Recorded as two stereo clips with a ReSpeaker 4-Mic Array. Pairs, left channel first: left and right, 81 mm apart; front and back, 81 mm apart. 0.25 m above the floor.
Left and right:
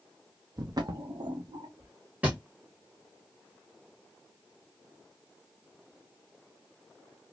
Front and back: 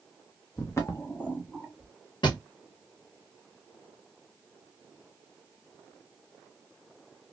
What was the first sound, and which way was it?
Footsteps, 45° right.